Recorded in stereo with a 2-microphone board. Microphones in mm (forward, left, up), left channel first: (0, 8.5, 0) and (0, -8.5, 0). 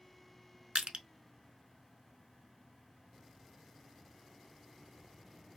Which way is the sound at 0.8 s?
70° right (ahead or behind).